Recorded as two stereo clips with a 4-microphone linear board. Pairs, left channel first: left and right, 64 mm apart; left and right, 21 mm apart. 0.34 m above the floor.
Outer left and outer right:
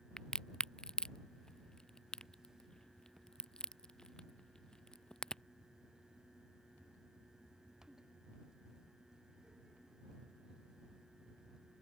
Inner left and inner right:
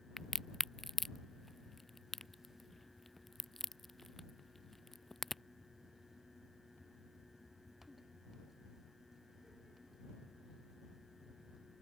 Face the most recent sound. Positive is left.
turn(degrees=10)  # may be behind; listen again after turning